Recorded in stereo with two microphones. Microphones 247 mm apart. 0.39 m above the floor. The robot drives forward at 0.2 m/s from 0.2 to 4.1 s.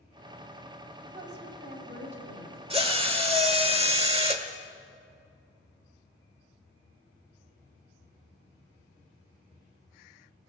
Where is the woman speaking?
45° right (ahead or behind), 2.5 m.